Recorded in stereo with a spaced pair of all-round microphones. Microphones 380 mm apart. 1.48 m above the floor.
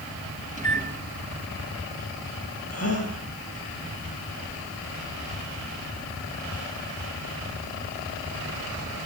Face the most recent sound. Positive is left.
turn(degrees=40)  # may be behind; listen again after turning